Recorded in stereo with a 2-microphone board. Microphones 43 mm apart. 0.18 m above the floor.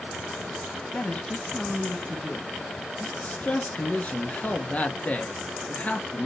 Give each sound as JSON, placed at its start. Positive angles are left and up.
{"t": 0.9, "sound": "a woman speaking", "side_deg": 30, "distance_m": 1.3}
{"t": 3.0, "sound": "a man speaking", "side_deg": 30, "distance_m": 2.5}